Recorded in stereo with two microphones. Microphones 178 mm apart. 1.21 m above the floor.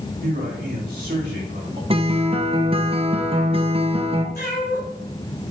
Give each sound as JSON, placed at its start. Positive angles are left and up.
{"t": 0.2, "sound": "a man speaking", "side_deg": -60, "distance_m": 4.5}
{"t": 1.9, "sound": "a guitar", "side_deg": -30, "distance_m": 0.9}
{"t": 4.3, "sound": "a cat meowing", "side_deg": 55, "distance_m": 2.5}